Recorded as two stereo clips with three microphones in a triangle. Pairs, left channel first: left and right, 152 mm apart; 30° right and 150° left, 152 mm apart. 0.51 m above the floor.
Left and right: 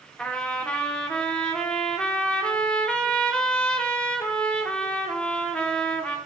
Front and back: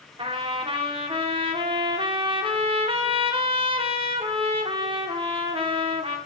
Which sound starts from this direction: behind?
A trumpet, at 0.2 s.